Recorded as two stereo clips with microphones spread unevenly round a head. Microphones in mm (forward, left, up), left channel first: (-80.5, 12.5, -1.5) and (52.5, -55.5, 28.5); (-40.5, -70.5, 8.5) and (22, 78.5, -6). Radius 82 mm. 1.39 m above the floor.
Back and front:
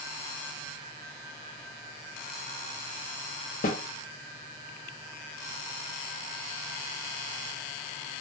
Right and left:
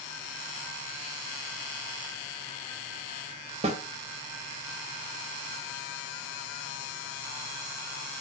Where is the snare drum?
120° left, 0.7 m.